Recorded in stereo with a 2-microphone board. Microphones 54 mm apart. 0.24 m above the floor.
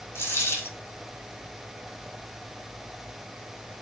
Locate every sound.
0.1 s a dropped coin: 50° left (ahead or behind), 2 m